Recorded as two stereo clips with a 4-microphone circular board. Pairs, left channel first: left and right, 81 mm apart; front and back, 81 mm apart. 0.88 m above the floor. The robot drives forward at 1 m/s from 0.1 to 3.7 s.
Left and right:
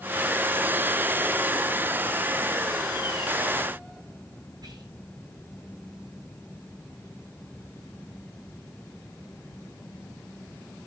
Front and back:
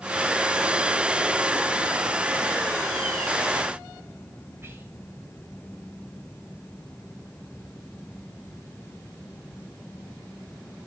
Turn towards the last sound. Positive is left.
turn(degrees=-120)